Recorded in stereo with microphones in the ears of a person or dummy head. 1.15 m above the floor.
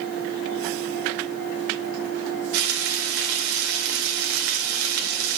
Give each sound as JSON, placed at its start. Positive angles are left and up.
{"t": 2.5, "sound": "frying", "side_deg": -75, "distance_m": 2.0}